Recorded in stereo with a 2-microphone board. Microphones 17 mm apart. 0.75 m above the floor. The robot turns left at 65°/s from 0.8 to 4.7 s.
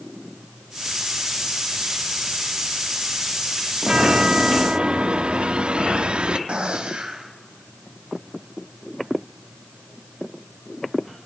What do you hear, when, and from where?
3.8 s a chime: 40° right, 0.9 m; by 6.4 s 100° right, 0.9 m
6.5 s a gunshot: 75° right (ahead or behind), 3.5 m